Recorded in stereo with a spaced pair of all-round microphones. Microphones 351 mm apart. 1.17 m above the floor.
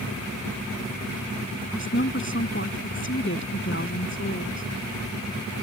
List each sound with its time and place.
1.7 s a woman speaking: 35° left (ahead or behind)